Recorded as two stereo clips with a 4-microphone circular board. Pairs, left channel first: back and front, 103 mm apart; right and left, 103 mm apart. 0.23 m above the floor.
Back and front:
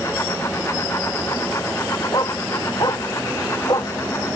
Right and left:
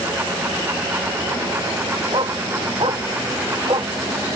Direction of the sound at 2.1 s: 130° left.